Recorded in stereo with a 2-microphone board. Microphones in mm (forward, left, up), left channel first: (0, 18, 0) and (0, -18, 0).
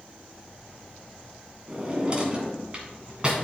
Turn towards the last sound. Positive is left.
turn(degrees=-25)  # may be behind; listen again after turning